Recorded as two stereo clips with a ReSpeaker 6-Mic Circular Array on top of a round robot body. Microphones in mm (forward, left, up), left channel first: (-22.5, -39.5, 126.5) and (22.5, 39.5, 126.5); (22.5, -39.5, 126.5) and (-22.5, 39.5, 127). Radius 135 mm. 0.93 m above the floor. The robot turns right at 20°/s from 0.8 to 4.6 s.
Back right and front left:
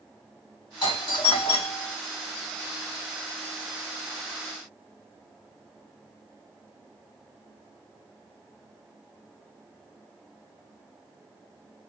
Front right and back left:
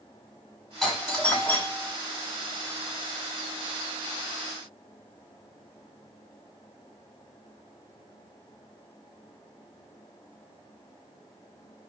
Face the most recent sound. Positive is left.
turn(degrees=-70)